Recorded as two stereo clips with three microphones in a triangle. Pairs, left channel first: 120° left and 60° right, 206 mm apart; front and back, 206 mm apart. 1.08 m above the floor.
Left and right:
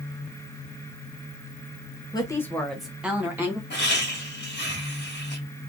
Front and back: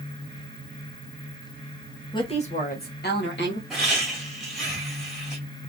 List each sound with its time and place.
2.1 s a woman speaking: 60° left, 0.6 m; by 3.6 s 20° left, 1.3 m
3.7 s laughter: 95° left, 1.8 m